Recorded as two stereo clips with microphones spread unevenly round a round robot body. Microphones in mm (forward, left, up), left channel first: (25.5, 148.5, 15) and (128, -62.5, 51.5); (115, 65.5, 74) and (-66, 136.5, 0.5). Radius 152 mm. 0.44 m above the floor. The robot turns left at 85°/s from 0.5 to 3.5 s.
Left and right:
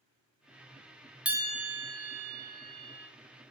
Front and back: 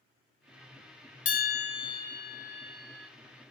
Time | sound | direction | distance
1.2 | a bell | 20° left | 0.6 m